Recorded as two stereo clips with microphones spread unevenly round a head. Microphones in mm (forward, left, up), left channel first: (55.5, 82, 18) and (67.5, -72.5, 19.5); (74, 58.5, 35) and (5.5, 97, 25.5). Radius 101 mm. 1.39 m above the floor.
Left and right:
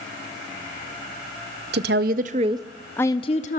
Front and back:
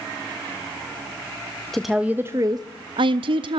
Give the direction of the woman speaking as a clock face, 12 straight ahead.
4 o'clock.